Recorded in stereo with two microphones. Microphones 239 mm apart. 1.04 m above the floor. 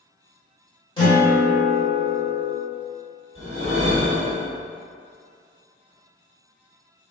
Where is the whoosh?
55° left (ahead or behind), 1.6 m.